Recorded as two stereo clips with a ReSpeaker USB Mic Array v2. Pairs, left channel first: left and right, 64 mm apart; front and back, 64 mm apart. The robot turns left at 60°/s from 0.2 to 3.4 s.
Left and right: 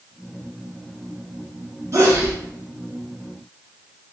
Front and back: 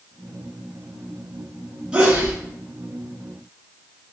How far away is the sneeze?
About 2 m.